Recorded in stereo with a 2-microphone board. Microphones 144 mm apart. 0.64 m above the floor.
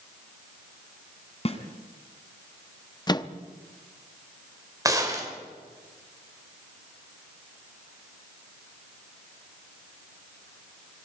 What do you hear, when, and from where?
1.4 s a snare drum: 40° left (ahead or behind), 2 m
3.1 s a microwave: 25° left (ahead or behind), 0.8 m
4.8 s a gunshot: 25° right (ahead or behind), 3 m